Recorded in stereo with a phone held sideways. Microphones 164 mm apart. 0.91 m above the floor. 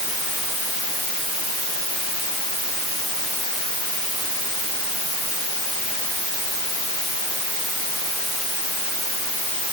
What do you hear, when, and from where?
Only background noise.